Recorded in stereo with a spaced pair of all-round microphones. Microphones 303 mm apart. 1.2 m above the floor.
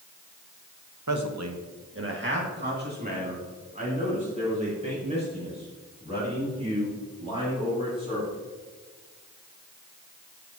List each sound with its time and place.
1.1 s a man speaking: 75° right (ahead or behind), 1.0 m; by 8.4 s 15° right (ahead or behind), 8 m